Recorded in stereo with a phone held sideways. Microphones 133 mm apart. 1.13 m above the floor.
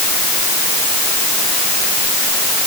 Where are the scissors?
I don't hear scissors.